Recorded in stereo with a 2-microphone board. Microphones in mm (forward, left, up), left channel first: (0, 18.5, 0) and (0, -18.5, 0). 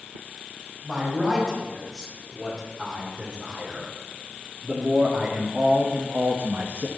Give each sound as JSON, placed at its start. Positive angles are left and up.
{"t": 0.8, "sound": "a man speaking", "side_deg": 0, "distance_m": 5.5}